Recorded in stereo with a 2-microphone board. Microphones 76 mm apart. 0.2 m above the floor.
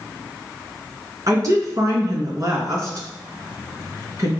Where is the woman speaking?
45° right (ahead or behind), 3 m.